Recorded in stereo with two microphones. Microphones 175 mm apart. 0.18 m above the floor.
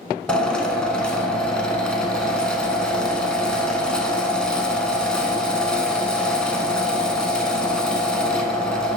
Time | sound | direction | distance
0.3 | a drill | 5° left (ahead or behind) | 0.6 m